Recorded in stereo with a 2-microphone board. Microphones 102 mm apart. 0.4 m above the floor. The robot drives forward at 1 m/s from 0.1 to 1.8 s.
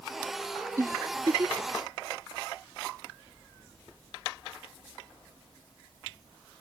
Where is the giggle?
30° right (ahead or behind); by 1.8 s 35° right (ahead or behind).